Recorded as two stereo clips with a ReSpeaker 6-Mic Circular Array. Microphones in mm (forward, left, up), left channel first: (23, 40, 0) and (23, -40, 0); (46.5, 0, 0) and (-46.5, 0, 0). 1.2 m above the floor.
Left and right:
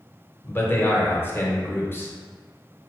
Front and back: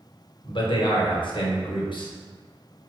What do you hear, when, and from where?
0.4 s a man speaking: 30° left, 0.9 m